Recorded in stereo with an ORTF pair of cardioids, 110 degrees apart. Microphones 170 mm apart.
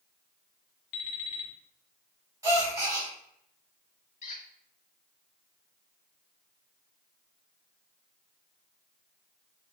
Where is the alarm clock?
70° left, 1.2 m.